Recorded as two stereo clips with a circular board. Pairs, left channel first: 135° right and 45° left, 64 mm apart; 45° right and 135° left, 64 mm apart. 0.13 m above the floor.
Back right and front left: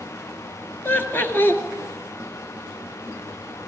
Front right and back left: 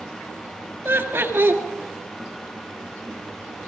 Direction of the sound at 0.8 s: Straight behind.